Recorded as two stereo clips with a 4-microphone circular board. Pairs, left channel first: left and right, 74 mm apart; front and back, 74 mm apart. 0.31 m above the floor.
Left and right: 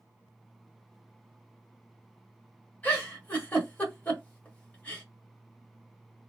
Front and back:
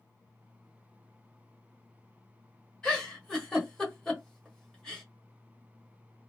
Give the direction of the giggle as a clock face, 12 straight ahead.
10 o'clock.